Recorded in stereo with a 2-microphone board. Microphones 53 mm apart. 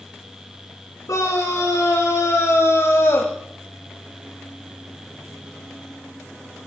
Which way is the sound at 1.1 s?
70° left (ahead or behind).